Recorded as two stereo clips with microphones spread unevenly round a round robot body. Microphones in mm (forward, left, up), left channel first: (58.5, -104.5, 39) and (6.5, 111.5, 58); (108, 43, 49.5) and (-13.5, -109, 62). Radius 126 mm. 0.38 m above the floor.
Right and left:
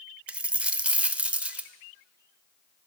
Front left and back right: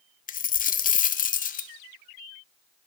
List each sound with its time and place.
0.3 s a dropped coin: 15° left, 0.6 m